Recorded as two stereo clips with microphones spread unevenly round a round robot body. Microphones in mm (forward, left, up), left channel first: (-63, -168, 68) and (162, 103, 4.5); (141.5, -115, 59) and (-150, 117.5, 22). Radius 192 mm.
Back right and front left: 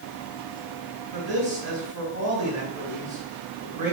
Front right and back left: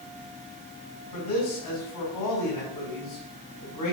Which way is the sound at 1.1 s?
10° right.